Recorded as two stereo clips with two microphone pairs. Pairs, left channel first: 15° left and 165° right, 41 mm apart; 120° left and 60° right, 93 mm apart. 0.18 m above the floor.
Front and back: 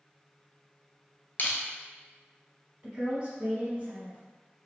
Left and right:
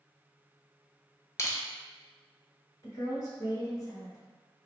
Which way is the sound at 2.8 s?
140° left.